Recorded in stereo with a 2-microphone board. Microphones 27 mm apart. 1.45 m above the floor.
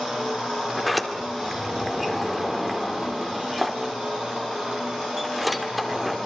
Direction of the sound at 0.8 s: 5° right (ahead or behind).